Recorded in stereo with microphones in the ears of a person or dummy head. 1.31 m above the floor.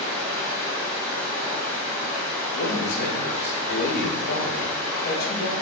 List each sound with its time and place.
0.0 s running water: 25° right (ahead or behind), 1.7 m
2.5 s a man speaking: 55° left (ahead or behind), 0.7 m